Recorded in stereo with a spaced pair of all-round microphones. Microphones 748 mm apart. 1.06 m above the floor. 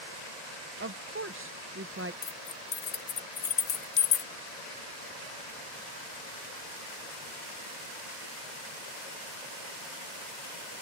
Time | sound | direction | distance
0.8 | a woman speaking | 20° right (ahead or behind) | ?
2.2 | keys jangling | 80° left | ?